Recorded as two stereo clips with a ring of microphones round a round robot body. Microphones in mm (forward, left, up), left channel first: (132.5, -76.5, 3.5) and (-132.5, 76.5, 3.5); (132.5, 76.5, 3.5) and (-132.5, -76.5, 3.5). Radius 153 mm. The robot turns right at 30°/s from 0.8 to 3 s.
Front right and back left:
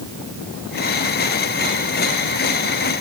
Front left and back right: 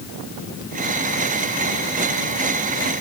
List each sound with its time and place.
Only background noise.